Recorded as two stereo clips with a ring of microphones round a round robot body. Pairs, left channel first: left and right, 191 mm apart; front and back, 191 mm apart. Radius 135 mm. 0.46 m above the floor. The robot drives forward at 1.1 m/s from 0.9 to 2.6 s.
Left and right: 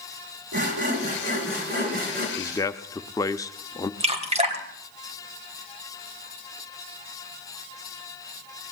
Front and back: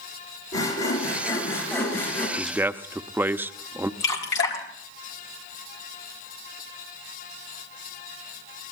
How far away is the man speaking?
About 0.7 m.